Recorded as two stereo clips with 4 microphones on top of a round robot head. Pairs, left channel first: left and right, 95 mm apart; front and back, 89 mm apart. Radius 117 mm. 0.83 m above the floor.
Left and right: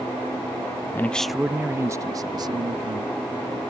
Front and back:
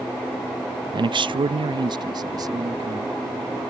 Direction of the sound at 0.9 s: 155° left.